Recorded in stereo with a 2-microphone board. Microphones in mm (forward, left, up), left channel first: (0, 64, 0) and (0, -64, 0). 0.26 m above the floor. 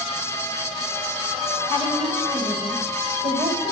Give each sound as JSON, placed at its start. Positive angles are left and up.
{"t": 1.7, "sound": "a woman speaking", "side_deg": -55, "distance_m": 6.0}